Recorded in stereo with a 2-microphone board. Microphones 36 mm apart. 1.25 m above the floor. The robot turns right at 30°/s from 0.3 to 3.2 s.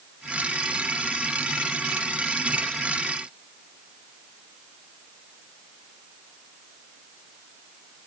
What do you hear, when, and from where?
Only background noise.